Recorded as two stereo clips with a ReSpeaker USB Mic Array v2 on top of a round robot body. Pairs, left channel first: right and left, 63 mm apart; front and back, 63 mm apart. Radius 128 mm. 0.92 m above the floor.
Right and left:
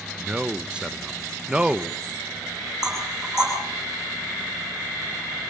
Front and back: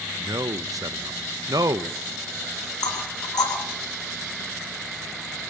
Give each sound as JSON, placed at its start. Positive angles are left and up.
{"t": 0.2, "sound": "a man speaking", "azimuth_deg": 165, "distance_m": 0.9}
{"t": 2.8, "sound": "knocking", "azimuth_deg": 10, "distance_m": 9.5}